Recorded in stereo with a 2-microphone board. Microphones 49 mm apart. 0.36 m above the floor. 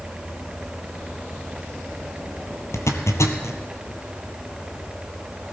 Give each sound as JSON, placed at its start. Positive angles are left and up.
{"t": 2.7, "sound": "a zipper", "side_deg": 80, "distance_m": 1.3}